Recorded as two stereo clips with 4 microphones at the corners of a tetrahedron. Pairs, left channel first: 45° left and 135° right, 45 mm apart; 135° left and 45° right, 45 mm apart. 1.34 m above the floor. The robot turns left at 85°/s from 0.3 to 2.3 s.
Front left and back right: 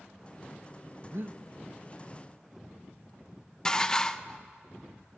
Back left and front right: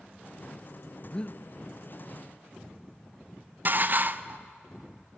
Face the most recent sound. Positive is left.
turn(degrees=-25)